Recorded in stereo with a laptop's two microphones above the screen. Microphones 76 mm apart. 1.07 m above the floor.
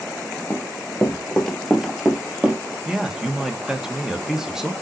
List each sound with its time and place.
0.5 s running footsteps: 30° left (ahead or behind), 1.2 m; by 2.6 s 20° right (ahead or behind), 1.3 m
2.9 s a man speaking: 5° right (ahead or behind), 1.2 m